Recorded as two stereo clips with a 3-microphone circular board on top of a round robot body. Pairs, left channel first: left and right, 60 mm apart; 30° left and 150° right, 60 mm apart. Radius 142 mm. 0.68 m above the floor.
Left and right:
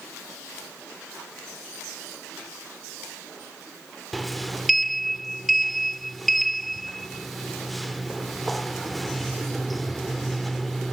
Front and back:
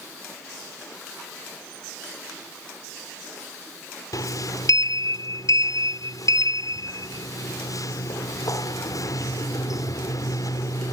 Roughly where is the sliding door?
Ahead.